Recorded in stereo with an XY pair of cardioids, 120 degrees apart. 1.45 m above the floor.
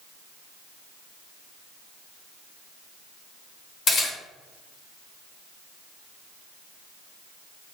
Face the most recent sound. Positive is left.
turn(degrees=50)